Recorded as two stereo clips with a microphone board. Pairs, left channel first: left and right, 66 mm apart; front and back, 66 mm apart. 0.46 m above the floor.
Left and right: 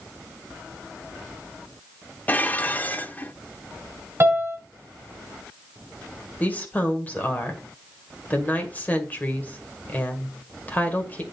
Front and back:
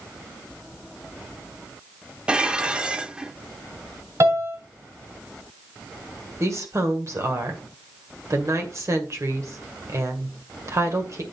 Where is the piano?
140° right, 3 m.